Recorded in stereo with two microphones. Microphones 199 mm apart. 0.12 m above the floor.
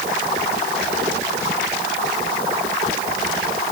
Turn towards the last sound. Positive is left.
No sound to turn to.